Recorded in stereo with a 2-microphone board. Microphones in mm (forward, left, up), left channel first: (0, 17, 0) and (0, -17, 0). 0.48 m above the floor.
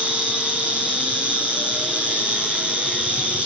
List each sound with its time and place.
0.0 s an insect: 35° right (ahead or behind), 5.5 m